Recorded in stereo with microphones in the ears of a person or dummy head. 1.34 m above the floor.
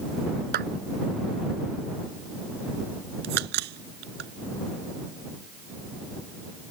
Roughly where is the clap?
Right.